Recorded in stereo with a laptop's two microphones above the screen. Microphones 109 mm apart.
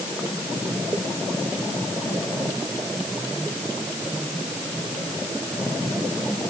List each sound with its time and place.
Only background noise.